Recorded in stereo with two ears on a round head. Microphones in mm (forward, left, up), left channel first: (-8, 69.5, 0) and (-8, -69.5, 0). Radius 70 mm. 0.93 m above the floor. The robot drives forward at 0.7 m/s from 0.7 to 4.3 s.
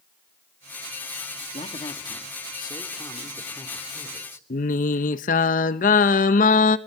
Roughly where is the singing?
Left.